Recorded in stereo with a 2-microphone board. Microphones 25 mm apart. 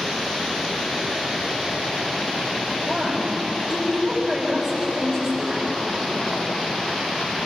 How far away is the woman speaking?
About 7.5 m.